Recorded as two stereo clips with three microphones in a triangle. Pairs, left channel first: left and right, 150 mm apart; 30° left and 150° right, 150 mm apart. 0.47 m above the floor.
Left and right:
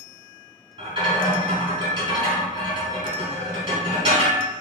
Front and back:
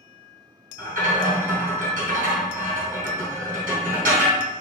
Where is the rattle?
140° right, 1.9 m.